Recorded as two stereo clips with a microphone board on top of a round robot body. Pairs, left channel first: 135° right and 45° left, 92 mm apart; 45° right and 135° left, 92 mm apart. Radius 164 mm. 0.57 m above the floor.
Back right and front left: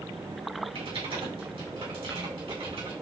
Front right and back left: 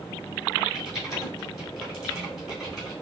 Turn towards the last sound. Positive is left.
turn(degrees=45)